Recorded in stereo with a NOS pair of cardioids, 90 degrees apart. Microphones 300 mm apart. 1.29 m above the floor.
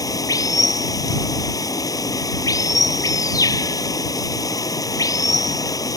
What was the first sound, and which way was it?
Running water, 10° left.